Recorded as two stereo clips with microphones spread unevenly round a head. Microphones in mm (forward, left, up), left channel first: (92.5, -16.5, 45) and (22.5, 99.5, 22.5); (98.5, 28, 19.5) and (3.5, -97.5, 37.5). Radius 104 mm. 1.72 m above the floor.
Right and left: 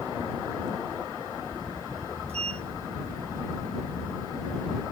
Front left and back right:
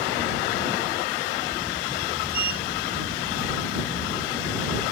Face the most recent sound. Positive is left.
turn(degrees=180)